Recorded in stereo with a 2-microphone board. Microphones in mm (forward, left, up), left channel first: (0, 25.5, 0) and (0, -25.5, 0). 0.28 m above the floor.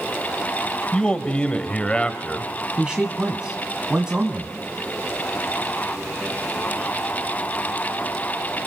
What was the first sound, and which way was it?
A man speaking, 20° left (ahead or behind).